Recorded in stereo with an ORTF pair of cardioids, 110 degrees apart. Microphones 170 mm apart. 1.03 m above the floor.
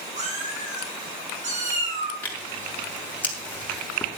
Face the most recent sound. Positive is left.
turn(degrees=10)